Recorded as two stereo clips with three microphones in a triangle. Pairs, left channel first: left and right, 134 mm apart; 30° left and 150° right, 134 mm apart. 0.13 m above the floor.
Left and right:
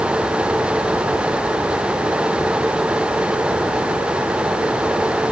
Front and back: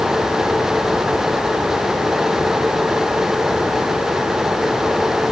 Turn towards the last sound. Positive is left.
No sound to turn to.